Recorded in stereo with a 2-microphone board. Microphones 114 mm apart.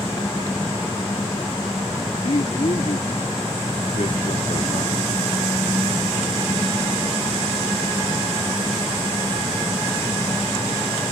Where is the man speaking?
70° left (ahead or behind).